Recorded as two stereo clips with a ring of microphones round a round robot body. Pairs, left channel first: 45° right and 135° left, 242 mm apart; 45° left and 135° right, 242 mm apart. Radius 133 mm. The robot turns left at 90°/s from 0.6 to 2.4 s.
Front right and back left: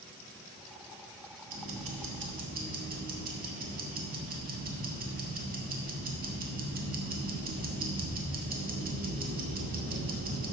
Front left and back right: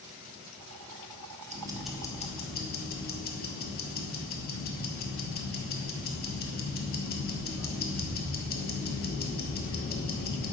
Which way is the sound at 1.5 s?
170° left.